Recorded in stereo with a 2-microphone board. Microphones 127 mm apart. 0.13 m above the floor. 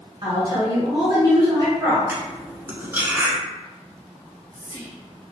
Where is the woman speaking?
30° right (ahead or behind), 1.2 m.